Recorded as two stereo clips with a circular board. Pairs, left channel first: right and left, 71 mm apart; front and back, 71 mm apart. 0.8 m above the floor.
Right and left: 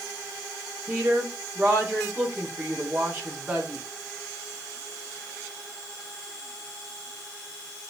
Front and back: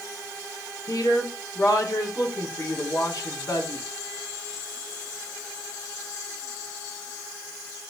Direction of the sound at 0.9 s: 30° left.